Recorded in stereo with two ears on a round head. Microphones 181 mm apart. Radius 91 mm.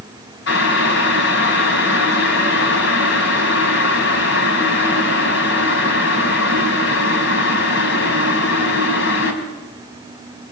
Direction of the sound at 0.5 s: 55° left (ahead or behind).